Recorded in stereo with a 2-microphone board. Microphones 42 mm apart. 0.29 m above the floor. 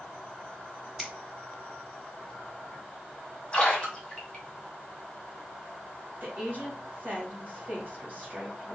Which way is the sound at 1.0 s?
5° right (ahead or behind).